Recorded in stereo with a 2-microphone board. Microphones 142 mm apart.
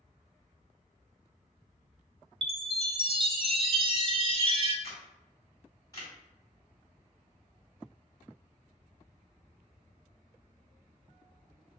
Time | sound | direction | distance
2.4 | a chime | 40° right (ahead or behind) | 0.5 m
4.8 | a camera shutter | 25° left (ahead or behind) | 1.5 m